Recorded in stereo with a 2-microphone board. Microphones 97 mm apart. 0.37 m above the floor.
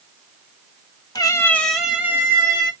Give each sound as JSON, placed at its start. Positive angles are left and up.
{"t": 1.1, "sound": "a cat meowing", "side_deg": 45, "distance_m": 1.1}